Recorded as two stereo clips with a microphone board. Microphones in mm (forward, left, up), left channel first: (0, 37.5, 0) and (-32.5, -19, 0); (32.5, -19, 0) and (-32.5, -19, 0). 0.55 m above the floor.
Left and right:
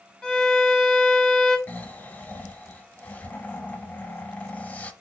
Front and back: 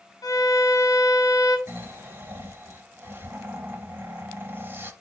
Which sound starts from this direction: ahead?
A violin, at 0.2 s.